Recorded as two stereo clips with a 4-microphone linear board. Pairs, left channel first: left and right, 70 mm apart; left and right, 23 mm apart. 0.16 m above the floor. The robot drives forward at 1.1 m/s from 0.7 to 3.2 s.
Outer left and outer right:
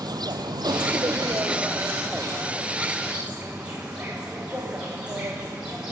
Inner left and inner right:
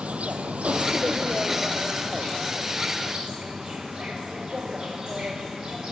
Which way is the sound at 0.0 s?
80° right.